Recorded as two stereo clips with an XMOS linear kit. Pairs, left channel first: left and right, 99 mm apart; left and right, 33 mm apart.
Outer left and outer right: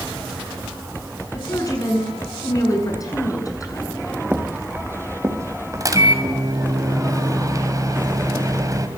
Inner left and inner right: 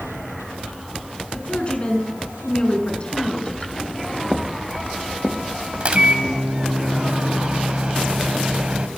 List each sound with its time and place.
1.3 s a woman speaking: 35° left (ahead or behind), 6.5 m
4.3 s footsteps: 15° right (ahead or behind), 3.5 m; by 6.3 s 35° right (ahead or behind), 6.5 m
5.8 s a microwave: 35° right (ahead or behind), 2.5 m